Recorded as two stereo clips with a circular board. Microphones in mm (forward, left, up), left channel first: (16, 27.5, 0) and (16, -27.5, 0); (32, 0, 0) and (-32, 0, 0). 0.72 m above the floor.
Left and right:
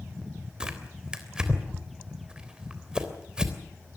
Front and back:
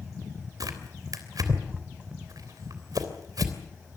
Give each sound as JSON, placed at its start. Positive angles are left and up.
{"t": 0.6, "sound": "tearing paper", "azimuth_deg": -165, "distance_m": 3.0}